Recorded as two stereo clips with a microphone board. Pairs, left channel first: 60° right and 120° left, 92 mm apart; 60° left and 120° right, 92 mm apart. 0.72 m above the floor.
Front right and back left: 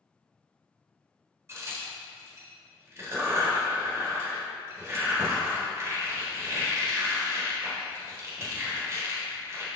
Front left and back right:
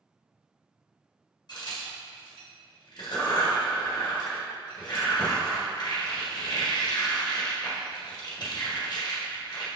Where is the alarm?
No alarm in this recording.